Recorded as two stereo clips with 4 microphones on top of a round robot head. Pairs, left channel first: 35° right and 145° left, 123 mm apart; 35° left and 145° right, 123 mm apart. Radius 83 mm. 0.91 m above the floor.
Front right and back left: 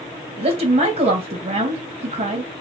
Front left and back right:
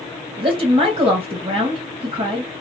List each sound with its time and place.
0.4 s a woman speaking: 175° left, 1.1 m